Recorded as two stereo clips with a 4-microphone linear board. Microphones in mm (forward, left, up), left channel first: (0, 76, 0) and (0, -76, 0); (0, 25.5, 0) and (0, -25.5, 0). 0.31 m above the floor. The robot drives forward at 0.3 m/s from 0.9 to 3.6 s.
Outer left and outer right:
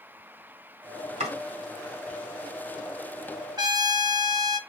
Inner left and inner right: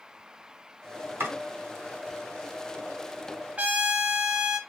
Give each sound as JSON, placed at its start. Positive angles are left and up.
{"t": 1.2, "sound": "chopping", "side_deg": -50, "distance_m": 2.0}
{"t": 3.6, "sound": "a trumpet", "side_deg": -25, "distance_m": 0.5}